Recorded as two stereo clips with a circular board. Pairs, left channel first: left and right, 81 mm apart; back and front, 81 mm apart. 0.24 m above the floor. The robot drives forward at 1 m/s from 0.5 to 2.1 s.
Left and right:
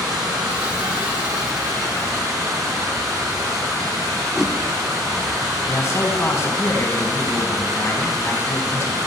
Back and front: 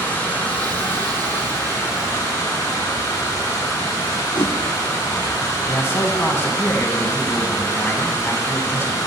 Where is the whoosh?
175° right, 0.6 m.